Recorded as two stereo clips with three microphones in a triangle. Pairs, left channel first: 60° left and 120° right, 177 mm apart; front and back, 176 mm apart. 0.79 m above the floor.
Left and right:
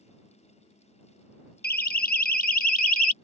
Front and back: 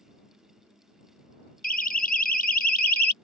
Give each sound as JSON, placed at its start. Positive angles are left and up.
{"t": 1.6, "sound": "a siren", "azimuth_deg": 35}